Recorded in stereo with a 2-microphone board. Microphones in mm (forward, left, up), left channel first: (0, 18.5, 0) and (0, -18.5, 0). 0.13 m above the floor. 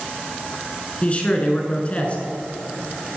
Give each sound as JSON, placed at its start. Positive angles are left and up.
{"t": 1.0, "sound": "a man speaking", "side_deg": 30, "distance_m": 1.1}